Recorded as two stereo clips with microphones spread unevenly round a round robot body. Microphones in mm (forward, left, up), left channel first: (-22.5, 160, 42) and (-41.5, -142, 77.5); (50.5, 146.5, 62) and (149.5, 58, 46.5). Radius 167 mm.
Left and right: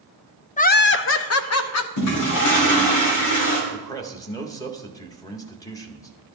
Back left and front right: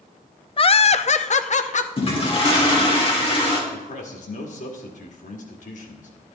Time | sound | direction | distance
0.6 | laughter | 115° left | 0.6 m
2.0 | a toilet flushing | 90° left | 3 m
3.7 | a man speaking | 160° left | 1.7 m